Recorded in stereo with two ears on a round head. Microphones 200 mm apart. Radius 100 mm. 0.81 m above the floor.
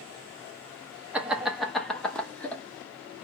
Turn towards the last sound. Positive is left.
turn(degrees=5)  # may be behind; listen again after turning